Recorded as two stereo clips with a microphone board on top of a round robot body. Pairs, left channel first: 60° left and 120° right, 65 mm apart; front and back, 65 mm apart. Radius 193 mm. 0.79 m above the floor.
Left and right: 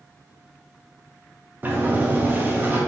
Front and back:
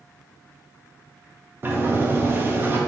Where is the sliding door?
155° right, 1.1 m.